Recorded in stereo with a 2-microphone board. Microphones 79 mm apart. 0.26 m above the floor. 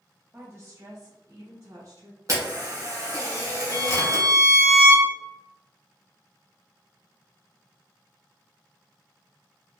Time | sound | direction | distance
0.3 | a woman speaking | 25° right (ahead or behind) | 0.9 m
2.3 | a camera shutter | 45° right (ahead or behind) | 1.9 m
3.7 | a violin | 30° left (ahead or behind) | 1.8 m